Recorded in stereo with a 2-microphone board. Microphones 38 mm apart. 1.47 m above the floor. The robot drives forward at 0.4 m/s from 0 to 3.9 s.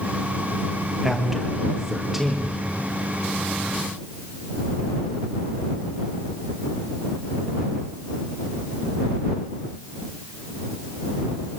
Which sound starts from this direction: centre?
A man speaking, at 1.0 s.